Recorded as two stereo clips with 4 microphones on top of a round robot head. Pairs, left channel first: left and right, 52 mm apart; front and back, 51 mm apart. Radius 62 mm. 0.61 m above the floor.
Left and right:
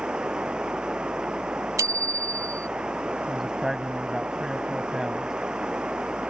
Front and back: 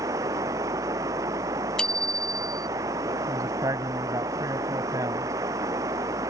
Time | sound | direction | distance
0.0 | running water | 165° right | ?
1.8 | a bicycle bell | 75° right | ?
3.3 | a man speaking | 175° right | ?